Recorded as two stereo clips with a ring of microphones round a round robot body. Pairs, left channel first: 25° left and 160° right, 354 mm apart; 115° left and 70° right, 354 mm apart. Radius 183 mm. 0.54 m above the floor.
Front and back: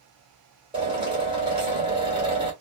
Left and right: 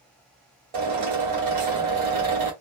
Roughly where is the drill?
Right.